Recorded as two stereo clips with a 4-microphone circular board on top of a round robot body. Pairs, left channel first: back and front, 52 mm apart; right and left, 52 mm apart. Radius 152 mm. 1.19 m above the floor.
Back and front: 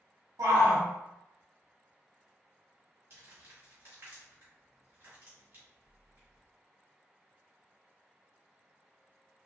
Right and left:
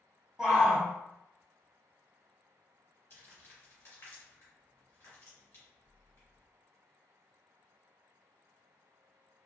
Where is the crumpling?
45° right, 1.6 m.